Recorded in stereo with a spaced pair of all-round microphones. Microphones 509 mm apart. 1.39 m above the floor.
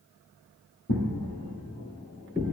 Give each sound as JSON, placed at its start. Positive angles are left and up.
{"t": 0.9, "sound": "footsteps", "side_deg": 25, "distance_m": 1.7}